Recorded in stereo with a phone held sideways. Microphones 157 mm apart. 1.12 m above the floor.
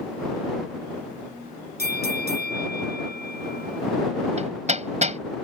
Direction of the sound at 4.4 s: 45° right (ahead or behind).